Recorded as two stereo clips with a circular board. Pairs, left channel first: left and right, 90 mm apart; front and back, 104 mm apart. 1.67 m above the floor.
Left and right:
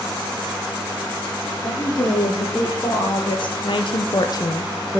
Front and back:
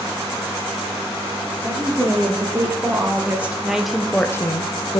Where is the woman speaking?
120° left, 2.5 m; by 5.0 s 5° left, 0.7 m.